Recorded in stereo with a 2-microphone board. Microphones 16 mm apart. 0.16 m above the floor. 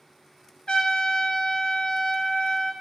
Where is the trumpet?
65° left (ahead or behind), 0.6 m.